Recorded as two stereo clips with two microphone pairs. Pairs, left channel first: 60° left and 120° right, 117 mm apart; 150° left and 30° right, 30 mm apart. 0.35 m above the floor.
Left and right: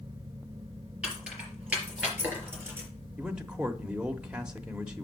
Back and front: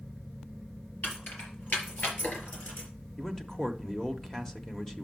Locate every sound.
1.0 s keys jangling: 160° left, 5 m; by 2.9 s 170° left, 3.5 m
3.2 s a man speaking: 170° left, 0.8 m